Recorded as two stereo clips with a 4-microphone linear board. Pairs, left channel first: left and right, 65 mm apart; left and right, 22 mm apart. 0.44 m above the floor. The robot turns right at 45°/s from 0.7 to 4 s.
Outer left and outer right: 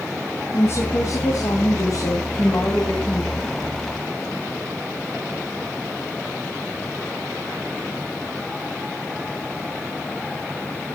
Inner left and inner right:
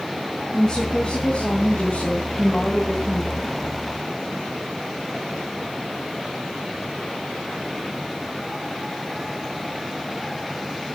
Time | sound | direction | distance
0.5 | a woman speaking | 45° left | 4 m